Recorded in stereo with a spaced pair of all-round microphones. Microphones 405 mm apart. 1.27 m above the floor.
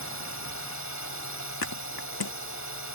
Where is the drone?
45° left (ahead or behind).